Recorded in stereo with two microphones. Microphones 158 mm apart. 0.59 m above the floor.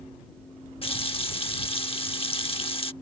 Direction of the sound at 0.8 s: 35° left (ahead or behind).